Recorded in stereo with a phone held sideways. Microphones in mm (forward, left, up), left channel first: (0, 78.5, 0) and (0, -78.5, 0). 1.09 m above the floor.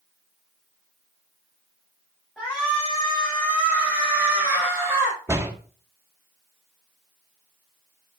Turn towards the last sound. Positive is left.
turn(degrees=-15)  # may be behind; listen again after turning